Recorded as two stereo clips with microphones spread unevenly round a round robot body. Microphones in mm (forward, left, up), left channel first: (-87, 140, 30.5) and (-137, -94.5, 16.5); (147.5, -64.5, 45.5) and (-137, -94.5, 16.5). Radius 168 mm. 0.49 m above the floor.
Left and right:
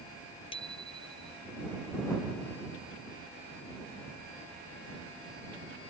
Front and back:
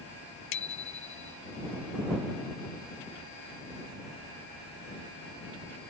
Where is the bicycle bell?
Straight ahead.